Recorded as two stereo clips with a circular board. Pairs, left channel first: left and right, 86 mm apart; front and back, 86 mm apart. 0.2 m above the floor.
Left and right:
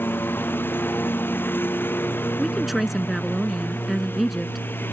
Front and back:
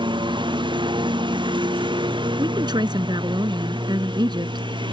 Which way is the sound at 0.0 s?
155° left.